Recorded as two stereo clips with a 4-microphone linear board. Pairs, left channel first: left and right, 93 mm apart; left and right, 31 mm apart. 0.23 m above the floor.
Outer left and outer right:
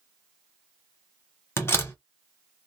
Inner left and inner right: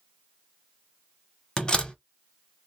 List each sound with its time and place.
1.6 s a door slam: 25° left (ahead or behind), 0.8 m